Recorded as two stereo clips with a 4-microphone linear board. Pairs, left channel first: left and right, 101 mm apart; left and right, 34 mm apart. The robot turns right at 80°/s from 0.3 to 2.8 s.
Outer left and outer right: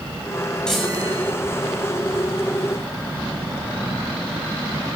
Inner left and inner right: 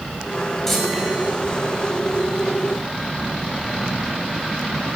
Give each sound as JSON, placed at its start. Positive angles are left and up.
{"t": 0.7, "sound": "a chime", "azimuth_deg": 170, "distance_m": 7.0}